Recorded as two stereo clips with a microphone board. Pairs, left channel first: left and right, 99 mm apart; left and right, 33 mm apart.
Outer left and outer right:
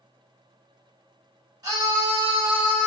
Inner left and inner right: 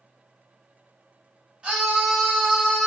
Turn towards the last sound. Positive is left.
turn(degrees=-5)  # may be behind; listen again after turning